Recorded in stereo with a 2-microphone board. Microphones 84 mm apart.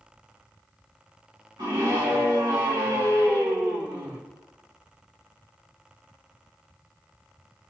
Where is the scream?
60° right (ahead or behind), 1.9 m.